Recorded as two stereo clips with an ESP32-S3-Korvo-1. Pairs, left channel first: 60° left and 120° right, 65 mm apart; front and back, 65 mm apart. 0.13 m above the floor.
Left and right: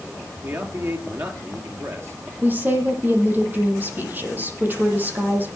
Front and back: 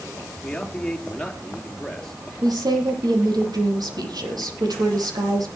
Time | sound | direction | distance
0.4 | a man speaking | 80° right | 3 m
2.4 | a woman speaking | straight behind | 5.5 m